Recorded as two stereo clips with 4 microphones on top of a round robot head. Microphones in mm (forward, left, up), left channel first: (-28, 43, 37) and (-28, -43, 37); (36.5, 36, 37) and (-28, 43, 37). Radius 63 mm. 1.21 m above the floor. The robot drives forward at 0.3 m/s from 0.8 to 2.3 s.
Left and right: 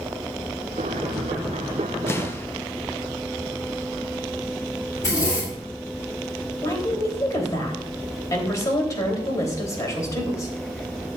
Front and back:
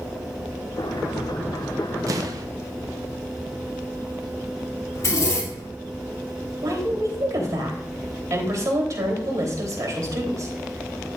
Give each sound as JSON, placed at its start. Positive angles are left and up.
{"t": 2.1, "sound": "an explosion", "azimuth_deg": 150, "distance_m": 0.7}
{"t": 5.0, "sound": "a zipper", "azimuth_deg": 35, "distance_m": 3.0}
{"t": 6.6, "sound": "a woman speaking", "azimuth_deg": 140, "distance_m": 3.5}